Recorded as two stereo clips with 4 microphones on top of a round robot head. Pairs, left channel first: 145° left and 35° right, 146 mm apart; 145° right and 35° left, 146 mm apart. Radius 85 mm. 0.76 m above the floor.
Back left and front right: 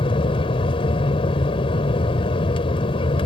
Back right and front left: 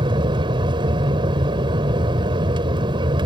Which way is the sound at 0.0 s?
90° left.